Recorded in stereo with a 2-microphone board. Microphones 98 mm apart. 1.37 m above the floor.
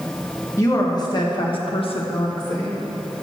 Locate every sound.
0.6 s a woman speaking: 35° left (ahead or behind), 1.5 m; by 2.8 s 40° left (ahead or behind), 1.1 m